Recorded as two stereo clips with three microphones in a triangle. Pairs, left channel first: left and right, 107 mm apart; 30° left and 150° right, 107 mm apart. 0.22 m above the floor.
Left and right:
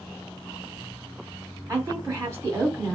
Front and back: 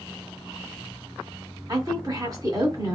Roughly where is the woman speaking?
Behind right.